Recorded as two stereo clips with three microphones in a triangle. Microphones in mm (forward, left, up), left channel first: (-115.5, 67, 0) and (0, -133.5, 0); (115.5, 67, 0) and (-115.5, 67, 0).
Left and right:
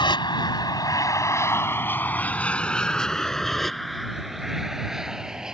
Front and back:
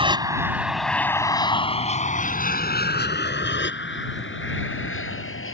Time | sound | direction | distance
0.0 | an aircraft | 155° left | ?